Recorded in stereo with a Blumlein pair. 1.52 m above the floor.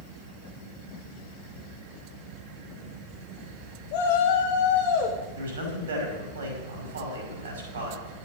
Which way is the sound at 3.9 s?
45° left.